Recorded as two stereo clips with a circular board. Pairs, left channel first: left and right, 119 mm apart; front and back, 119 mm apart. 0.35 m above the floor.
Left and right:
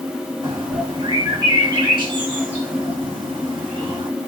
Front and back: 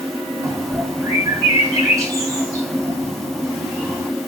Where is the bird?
125° right, 1.5 m.